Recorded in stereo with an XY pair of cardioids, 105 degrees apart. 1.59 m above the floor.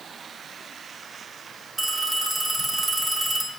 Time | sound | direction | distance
1.8 | a phone ringing | 25° right | 2.5 m